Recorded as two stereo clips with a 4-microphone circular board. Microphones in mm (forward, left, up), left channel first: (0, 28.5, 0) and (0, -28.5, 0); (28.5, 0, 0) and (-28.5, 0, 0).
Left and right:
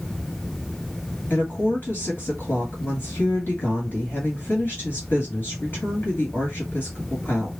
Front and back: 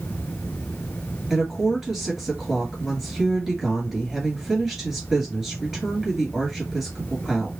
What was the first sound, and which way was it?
A woman speaking, 100° left.